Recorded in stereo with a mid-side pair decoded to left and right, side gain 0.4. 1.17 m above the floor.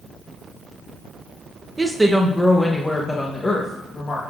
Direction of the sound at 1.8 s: 20° right.